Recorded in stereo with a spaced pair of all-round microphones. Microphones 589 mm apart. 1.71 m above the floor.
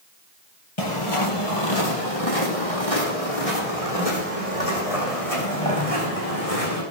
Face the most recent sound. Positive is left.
turn(degrees=75)  # may be behind; listen again after turning